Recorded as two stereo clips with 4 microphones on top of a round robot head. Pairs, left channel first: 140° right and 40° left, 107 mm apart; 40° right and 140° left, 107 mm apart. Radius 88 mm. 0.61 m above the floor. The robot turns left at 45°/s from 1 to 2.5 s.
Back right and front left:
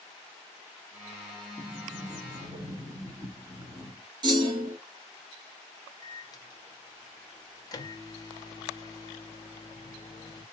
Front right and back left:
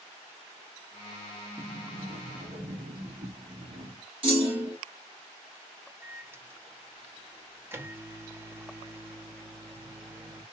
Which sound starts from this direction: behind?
A microwave, at 6.0 s.